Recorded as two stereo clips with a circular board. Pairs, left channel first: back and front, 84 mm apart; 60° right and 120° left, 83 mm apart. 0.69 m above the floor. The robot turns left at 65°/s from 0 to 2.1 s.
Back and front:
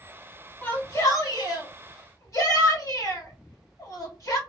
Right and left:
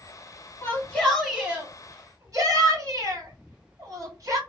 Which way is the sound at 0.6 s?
115° right.